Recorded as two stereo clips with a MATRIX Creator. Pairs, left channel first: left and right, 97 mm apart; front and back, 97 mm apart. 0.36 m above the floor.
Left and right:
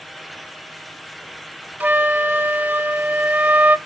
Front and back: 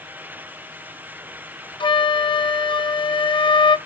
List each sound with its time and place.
1.8 s a flute: 20° right, 0.5 m